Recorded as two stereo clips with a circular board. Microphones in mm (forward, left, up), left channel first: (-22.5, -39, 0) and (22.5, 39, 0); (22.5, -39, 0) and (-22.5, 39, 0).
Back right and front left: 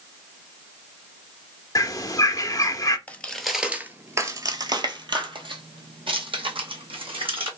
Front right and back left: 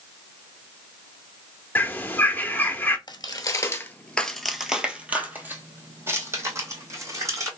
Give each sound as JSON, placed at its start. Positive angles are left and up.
{"t": 1.8, "sound": "a bird", "azimuth_deg": -115, "distance_m": 0.7}
{"t": 3.1, "sound": "footsteps", "azimuth_deg": -50, "distance_m": 0.7}